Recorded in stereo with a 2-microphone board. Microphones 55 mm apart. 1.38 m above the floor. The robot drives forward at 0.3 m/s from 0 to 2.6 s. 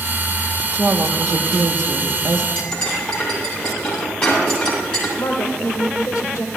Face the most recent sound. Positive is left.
turn(degrees=85)